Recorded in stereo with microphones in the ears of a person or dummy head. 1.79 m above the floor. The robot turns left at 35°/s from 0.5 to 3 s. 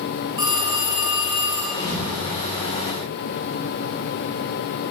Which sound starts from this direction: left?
A thud, at 1.7 s.